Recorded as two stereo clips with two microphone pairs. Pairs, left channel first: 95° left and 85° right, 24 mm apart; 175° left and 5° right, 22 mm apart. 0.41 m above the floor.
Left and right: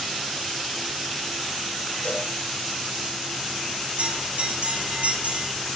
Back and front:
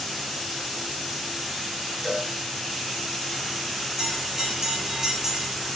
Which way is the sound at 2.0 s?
85° left.